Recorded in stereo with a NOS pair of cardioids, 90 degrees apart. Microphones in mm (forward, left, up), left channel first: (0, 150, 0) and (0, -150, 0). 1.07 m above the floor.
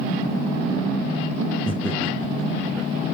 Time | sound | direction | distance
1.7 | laughter | 5° left | 2 m